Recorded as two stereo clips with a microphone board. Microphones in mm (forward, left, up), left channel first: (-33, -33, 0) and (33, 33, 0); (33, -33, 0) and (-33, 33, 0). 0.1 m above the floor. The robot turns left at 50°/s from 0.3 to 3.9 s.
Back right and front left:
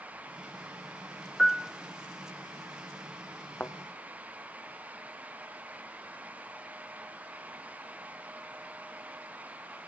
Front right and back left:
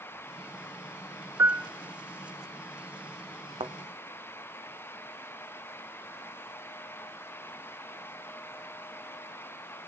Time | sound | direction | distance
1.4 | a piano | 145° left | 0.6 m
3.6 | a thud | 155° left | 1.6 m